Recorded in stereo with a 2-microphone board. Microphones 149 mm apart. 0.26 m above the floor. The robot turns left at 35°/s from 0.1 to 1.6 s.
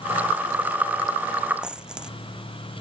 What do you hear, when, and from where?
1.6 s a dropped coin: 5° right (ahead or behind)